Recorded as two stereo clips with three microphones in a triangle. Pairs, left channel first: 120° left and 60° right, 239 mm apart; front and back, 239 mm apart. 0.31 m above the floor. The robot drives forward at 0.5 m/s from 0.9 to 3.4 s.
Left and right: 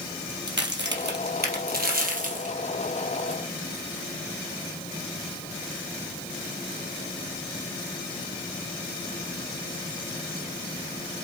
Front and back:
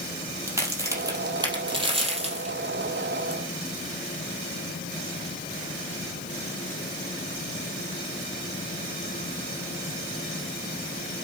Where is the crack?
100° right, 2.5 m; by 3.4 s 125° right, 3 m.